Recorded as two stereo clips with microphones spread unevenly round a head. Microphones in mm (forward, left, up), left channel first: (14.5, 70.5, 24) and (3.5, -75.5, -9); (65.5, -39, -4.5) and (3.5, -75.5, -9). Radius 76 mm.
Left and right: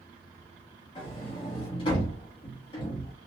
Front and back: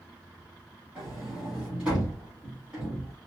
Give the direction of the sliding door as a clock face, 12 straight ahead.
8 o'clock.